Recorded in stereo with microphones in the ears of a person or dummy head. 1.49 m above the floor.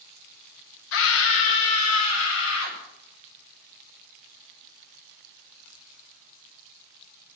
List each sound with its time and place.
0.9 s a scream: 70° left (ahead or behind), 1.1 m; by 2.8 s 85° left, 2.5 m